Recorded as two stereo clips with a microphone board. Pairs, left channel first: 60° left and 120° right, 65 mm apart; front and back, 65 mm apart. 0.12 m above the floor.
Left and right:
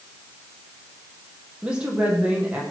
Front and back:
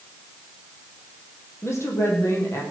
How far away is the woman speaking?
About 5 m.